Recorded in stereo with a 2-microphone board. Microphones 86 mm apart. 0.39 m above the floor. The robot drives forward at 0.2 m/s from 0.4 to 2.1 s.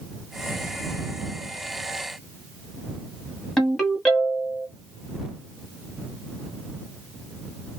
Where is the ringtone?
5° left (ahead or behind), 1.2 m.